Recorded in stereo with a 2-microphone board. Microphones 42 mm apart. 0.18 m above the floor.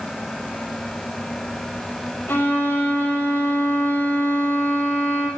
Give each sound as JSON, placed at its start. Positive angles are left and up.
{"t": 2.3, "sound": "a violin", "side_deg": 65, "distance_m": 4.5}